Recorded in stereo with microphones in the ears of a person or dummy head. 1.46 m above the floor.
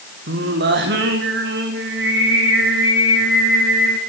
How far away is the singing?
About 1.7 m.